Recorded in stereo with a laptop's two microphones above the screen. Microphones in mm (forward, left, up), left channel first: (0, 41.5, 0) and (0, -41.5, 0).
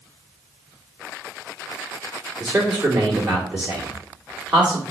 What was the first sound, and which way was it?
A man speaking, 10° right (ahead or behind).